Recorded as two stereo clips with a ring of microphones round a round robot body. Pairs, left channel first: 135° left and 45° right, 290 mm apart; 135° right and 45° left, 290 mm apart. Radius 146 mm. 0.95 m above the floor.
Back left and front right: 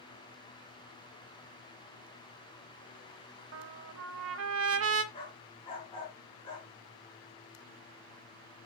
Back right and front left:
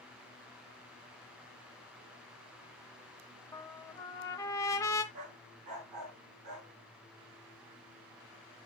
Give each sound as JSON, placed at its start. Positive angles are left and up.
{"t": 3.5, "sound": "a trumpet", "azimuth_deg": -60, "distance_m": 0.9}
{"t": 5.1, "sound": "a dog barking", "azimuth_deg": 60, "distance_m": 5.0}